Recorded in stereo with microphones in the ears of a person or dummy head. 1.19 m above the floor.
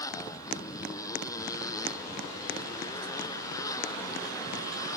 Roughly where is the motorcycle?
Centre.